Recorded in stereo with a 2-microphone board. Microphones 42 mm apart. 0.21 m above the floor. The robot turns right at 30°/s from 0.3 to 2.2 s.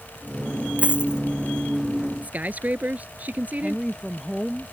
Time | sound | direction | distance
0.8 | a dropped coin | 30° right (ahead or behind) | ?
2.2 | a man speaking | 40° right (ahead or behind) | ?
3.6 | a woman speaking | 10° left (ahead or behind) | ?